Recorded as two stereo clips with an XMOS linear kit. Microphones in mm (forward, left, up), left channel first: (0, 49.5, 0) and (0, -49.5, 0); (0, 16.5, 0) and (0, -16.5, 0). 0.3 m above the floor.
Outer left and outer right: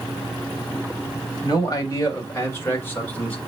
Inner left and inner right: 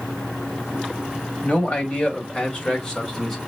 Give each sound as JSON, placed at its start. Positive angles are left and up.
{"t": 1.4, "sound": "a man speaking", "side_deg": 40, "distance_m": 1.6}